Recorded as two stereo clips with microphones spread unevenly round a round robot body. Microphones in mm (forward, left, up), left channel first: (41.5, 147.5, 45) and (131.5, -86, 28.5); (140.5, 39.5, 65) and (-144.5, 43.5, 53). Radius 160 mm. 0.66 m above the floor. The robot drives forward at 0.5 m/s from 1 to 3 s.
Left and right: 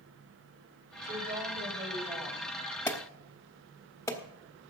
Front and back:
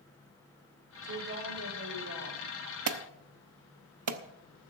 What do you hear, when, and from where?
1.0 s a woman speaking: 130° right, 3.5 m; by 2.5 s 135° right, 4 m
2.9 s an alarm: 165° right, 0.9 m